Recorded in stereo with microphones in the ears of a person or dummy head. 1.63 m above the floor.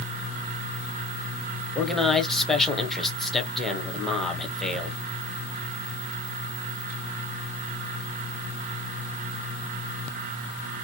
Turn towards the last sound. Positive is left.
turn(degrees=0)  # may be behind; listen again after turning